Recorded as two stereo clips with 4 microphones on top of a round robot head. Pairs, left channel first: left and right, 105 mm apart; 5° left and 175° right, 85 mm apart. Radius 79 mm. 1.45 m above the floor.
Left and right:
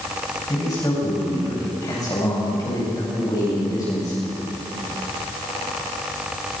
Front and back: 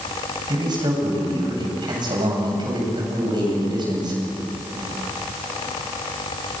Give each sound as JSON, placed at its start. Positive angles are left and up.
{"t": 0.5, "sound": "a man speaking", "azimuth_deg": 150, "distance_m": 8.5}